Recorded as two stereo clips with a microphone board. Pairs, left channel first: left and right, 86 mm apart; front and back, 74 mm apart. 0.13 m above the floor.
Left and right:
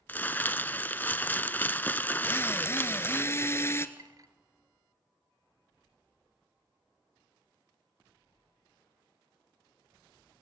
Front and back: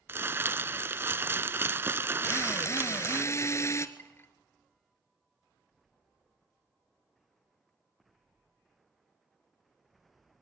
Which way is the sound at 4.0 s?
55° right.